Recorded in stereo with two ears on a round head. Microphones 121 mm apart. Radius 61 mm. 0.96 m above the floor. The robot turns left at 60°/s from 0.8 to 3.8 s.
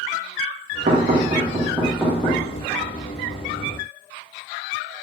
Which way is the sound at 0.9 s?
60° right (ahead or behind).